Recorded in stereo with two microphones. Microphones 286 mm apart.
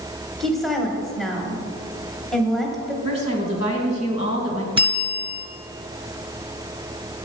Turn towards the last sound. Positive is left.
turn(degrees=-20)  # may be behind; listen again after turning